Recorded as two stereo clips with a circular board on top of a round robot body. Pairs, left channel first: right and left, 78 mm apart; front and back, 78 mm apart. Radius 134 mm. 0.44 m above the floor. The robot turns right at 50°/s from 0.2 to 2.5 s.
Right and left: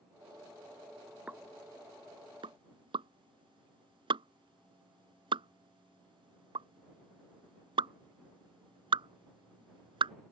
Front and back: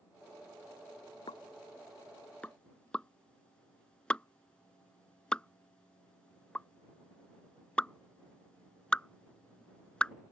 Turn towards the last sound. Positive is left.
turn(degrees=80)